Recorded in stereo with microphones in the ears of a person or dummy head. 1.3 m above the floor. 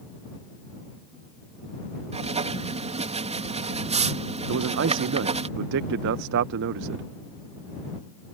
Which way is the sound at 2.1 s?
35° right (ahead or behind).